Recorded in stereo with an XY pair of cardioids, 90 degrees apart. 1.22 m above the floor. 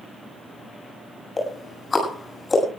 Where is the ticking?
30° left, 7 m.